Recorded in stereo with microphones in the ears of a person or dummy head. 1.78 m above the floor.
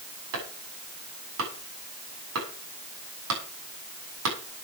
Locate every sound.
0.3 s chopping: 80° right, 7 m